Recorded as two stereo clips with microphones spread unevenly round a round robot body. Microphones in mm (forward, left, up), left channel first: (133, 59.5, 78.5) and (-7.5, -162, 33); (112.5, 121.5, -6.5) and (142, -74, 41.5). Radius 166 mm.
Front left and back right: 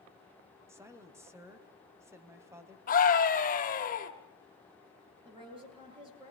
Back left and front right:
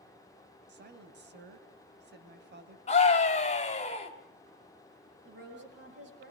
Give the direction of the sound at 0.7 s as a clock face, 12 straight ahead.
2 o'clock.